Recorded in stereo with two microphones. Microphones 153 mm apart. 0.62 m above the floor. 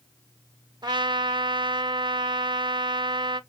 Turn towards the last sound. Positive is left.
turn(degrees=-30)  # may be behind; listen again after turning